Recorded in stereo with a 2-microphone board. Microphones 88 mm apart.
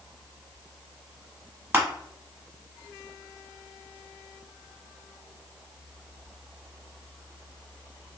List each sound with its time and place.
1.7 s crushing: 20° right (ahead or behind), 0.8 m